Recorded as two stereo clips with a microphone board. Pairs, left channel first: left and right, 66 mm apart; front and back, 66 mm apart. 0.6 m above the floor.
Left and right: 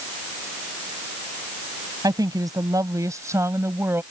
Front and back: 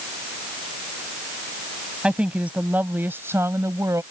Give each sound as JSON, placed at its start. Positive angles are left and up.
{"t": 2.0, "sound": "a woman speaking", "azimuth_deg": -105}